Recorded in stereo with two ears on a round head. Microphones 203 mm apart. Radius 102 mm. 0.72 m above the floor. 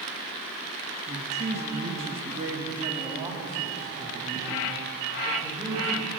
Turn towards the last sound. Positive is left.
turn(degrees=-5)  # may be behind; listen again after turning